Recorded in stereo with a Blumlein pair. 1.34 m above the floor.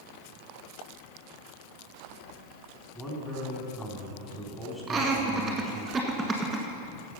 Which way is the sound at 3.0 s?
5° left.